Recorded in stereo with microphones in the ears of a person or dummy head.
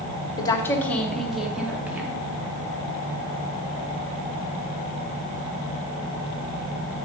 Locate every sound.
0.4 s a woman speaking: 25° left (ahead or behind), 1.0 m; by 2.3 s 10° right (ahead or behind), 1.9 m